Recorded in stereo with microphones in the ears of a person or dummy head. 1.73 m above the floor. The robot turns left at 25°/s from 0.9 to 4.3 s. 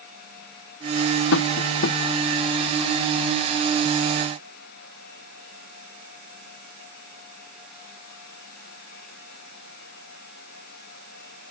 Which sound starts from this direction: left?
Tapping, at 1.3 s.